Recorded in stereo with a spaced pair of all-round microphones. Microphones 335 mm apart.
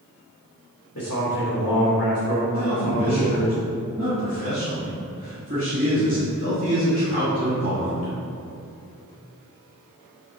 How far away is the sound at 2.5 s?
About 2.5 m.